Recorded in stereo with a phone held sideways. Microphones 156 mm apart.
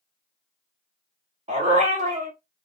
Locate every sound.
1.5 s a dog barking: 45° right (ahead or behind), 1.2 m